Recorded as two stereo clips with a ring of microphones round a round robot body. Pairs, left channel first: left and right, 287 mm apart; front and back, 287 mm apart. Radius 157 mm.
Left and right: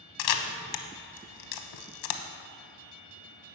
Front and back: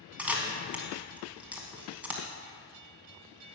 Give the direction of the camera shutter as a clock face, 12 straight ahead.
9 o'clock.